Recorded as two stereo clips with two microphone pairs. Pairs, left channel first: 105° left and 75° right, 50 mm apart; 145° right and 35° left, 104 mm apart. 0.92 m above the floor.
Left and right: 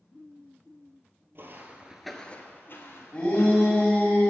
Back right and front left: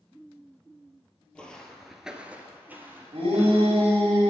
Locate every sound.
1.4 s footsteps: 70° right, 1.3 m; by 4.0 s 105° left, 3 m
3.1 s a shout: 40° left, 3 m